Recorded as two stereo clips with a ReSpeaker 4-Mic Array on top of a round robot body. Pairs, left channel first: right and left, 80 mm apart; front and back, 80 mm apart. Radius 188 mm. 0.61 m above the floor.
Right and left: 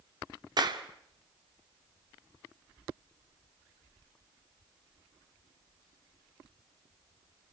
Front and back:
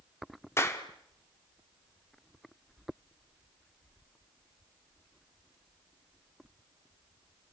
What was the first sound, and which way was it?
A clap, 60° left.